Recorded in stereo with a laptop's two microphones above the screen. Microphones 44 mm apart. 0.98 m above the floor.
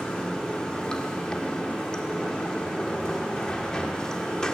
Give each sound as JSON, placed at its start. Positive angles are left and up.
{"t": 0.0, "sound": "running water", "side_deg": 20, "distance_m": 1.3}